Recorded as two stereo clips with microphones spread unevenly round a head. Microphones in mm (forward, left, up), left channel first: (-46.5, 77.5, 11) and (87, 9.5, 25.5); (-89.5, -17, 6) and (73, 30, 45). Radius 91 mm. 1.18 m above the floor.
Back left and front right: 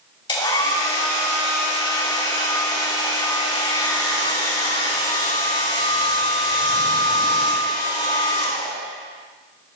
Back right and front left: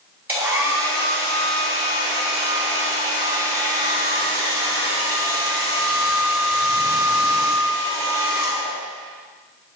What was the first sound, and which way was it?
A hair dryer, 95° left.